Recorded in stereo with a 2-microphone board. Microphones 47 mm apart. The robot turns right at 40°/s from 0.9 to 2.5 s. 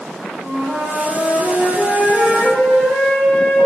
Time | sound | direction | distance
0.4 | a flute | 60° right | 1.0 m